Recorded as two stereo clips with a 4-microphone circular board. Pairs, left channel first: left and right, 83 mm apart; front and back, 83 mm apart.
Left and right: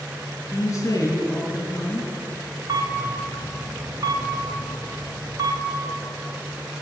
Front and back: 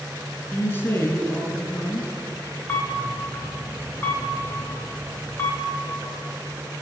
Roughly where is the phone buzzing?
No phone buzzing in this recording.